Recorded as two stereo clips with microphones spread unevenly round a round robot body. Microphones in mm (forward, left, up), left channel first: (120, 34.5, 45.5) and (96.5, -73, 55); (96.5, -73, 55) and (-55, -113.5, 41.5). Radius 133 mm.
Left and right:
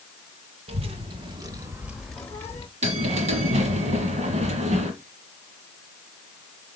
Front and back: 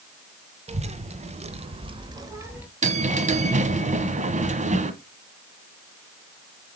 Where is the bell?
130° right, 1.3 m.